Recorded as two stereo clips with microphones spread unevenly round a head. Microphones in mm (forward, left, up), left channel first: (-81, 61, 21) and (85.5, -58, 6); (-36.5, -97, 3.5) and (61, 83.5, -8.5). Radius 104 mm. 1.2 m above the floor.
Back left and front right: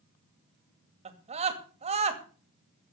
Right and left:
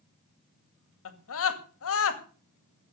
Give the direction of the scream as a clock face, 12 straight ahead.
3 o'clock.